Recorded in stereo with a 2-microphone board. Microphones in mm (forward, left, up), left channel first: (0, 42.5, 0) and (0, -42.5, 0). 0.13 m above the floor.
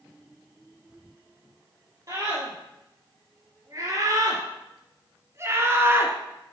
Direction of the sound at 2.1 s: 40° right (ahead or behind).